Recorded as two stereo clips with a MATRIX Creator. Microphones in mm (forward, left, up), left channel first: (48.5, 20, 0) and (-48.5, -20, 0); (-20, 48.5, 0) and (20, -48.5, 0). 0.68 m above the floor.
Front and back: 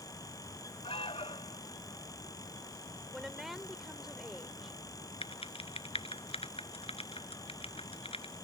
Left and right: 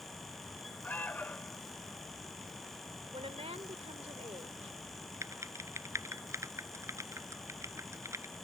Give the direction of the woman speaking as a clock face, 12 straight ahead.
2 o'clock.